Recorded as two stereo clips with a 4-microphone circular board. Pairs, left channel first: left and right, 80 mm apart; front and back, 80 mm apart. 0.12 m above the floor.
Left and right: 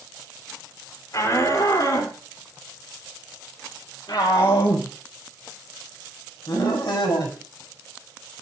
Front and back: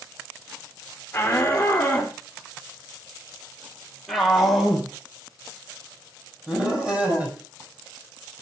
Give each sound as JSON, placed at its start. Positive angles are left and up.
{"t": 1.1, "sound": "a shout", "azimuth_deg": 60, "distance_m": 3.5}